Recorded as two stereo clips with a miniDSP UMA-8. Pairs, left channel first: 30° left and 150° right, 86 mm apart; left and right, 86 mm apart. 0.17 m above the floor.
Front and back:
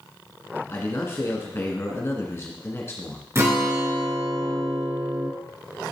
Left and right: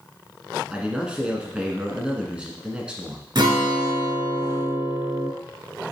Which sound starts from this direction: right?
A guitar, at 3.4 s.